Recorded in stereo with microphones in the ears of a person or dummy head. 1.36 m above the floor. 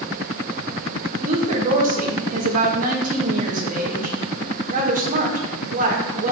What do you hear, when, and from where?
1.2 s a woman speaking: 45° right (ahead or behind), 1.7 m